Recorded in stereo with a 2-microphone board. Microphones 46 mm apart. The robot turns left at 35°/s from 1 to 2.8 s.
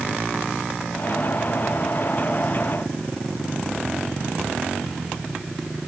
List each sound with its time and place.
Only background noise.